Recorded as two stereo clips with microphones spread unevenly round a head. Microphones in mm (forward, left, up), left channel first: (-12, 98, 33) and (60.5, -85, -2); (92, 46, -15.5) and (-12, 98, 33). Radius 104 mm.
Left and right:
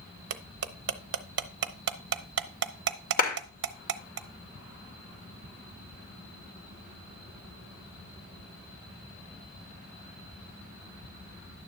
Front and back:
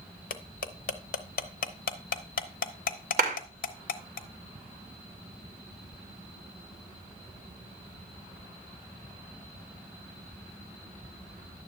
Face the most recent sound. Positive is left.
turn(degrees=165)